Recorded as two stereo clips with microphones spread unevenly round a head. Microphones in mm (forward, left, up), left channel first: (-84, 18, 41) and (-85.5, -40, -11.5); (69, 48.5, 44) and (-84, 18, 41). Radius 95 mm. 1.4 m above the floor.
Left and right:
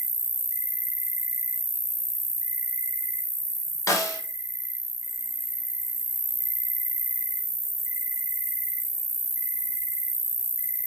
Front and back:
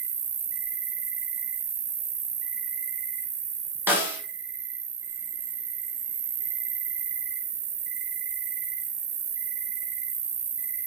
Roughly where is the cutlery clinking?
I don't hear cutlery clinking.